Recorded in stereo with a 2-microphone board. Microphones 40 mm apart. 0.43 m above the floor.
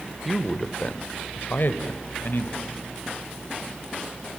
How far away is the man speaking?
About 1.3 m.